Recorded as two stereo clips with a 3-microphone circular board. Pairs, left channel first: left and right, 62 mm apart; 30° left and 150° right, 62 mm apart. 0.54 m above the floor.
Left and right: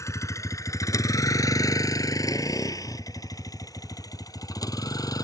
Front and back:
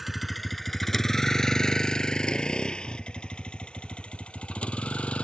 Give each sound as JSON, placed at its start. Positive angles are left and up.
{"t": 0.0, "sound": "a vehicle", "azimuth_deg": 125}